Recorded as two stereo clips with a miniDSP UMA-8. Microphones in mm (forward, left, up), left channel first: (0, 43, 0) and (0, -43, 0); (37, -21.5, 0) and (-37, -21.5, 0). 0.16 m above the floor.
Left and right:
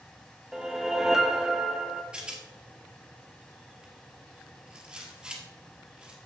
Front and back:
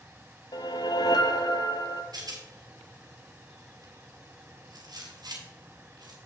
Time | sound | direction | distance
0.5 | a whoosh | 5° right | 0.6 m
2.1 | a rattle | 165° right | 1.7 m